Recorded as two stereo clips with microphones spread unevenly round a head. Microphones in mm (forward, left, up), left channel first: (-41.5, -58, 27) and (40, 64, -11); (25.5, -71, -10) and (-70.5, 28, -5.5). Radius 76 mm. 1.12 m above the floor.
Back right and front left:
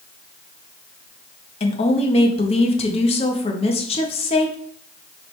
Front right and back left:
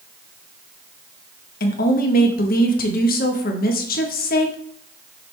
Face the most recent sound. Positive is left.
turn(degrees=-65)